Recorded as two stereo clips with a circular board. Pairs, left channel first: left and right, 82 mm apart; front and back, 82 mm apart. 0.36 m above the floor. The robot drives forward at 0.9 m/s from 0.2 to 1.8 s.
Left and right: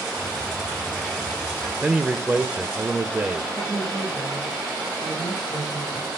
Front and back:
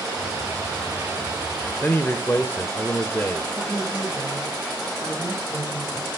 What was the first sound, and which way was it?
A man speaking, 30° right.